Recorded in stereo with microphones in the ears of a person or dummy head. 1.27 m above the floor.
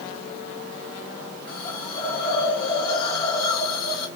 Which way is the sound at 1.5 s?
20° left (ahead or behind).